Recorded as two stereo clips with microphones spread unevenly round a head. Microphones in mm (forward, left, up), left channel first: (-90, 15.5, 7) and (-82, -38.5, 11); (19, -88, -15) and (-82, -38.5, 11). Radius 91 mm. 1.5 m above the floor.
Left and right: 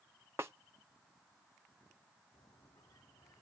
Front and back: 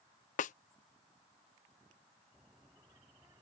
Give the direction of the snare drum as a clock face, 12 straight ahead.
12 o'clock.